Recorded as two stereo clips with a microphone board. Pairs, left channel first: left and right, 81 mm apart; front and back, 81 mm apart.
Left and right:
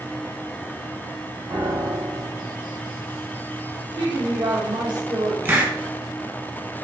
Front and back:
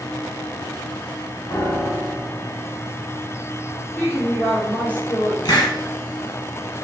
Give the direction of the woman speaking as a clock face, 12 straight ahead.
2 o'clock.